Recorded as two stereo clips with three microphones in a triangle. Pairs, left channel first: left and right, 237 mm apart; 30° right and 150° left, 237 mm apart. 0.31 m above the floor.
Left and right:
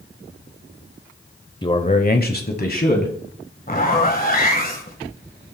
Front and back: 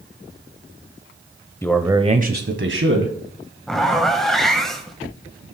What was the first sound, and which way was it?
A man speaking, 40° left.